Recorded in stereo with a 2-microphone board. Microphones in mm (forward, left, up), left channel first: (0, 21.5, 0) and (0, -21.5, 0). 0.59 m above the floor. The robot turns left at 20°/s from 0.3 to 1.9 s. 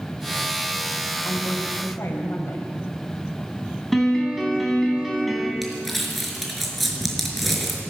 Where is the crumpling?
Centre (ahead or behind), 4.5 m.